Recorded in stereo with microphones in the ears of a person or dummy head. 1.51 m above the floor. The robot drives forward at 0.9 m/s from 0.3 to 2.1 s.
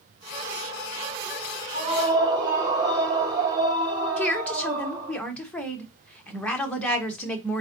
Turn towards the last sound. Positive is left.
turn(degrees=5)  # may be behind; listen again after turning